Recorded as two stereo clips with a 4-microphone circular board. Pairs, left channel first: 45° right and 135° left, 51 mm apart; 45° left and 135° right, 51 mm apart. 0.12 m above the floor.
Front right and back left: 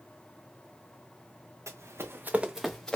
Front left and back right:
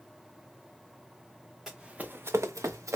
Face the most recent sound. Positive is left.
turn(degrees=-120)